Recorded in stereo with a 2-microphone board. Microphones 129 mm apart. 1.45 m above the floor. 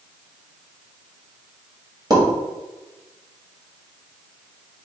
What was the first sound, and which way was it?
A pop, 30° right (ahead or behind).